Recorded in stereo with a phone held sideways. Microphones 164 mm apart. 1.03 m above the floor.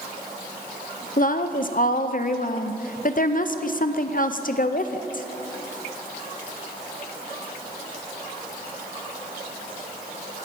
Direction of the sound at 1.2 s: 55° left (ahead or behind).